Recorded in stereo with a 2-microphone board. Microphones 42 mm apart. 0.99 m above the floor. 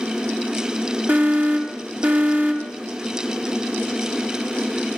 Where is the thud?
I don't hear a thud.